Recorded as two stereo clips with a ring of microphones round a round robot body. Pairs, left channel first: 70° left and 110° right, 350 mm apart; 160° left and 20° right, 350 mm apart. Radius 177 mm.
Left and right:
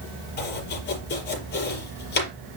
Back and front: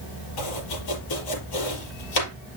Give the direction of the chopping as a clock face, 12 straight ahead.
8 o'clock.